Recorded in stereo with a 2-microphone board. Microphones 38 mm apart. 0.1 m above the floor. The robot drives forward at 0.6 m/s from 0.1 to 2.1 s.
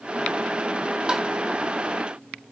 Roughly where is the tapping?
Centre.